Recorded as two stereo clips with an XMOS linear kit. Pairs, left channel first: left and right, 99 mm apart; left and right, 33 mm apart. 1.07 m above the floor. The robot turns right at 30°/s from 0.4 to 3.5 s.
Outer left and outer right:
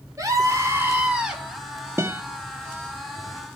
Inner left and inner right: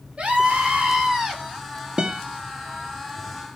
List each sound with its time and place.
0.2 s a scream: 35° right, 4.5 m; by 1.4 s 5° right, 4.5 m
2.0 s a guitar: 25° right (ahead or behind), 1.4 m; by 2.2 s 20° right (ahead or behind), 1.4 m